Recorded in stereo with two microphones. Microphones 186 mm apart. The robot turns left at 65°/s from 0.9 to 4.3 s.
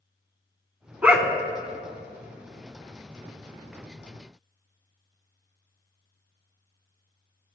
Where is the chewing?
I don't hear chewing.